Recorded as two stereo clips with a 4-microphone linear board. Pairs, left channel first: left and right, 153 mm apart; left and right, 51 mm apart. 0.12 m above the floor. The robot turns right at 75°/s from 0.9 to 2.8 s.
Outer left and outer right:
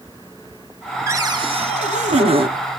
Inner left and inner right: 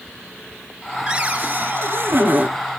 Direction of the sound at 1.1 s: 155° right.